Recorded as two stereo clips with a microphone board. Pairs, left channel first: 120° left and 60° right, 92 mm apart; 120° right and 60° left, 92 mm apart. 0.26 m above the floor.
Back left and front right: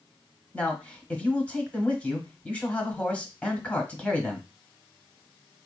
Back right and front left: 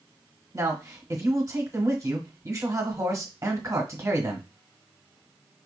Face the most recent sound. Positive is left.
turn(degrees=55)